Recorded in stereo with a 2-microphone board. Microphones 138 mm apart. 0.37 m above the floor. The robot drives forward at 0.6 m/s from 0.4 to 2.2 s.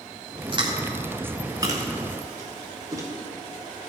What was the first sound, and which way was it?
Chewing, 35° right (ahead or behind).